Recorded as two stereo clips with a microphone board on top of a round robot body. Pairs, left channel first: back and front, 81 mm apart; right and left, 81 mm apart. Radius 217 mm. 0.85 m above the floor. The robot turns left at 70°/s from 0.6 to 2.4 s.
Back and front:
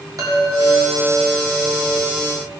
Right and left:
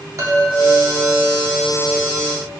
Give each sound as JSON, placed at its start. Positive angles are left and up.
{"t": 0.2, "sound": "a chime", "azimuth_deg": 40, "distance_m": 3.5}